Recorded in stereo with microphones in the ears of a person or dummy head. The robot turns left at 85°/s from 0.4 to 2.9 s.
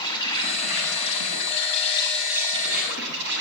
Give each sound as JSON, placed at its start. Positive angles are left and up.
{"t": 0.0, "sound": "an insect", "azimuth_deg": 155, "distance_m": 7.5}